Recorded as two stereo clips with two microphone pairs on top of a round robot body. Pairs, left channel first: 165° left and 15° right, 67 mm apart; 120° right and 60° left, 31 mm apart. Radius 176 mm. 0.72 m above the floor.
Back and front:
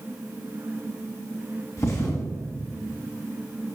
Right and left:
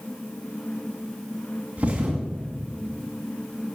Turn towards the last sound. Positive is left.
turn(degrees=115)